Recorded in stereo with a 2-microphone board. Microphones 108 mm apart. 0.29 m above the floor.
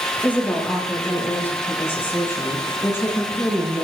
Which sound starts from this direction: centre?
A woman speaking, at 0.2 s.